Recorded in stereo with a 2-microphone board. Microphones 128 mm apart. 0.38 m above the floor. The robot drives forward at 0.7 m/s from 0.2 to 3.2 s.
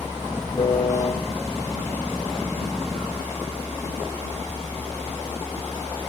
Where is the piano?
55° left (ahead or behind), 0.7 m; by 1.1 s 35° left (ahead or behind), 0.9 m.